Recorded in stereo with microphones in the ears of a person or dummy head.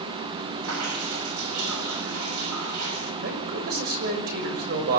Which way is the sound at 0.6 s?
85° right.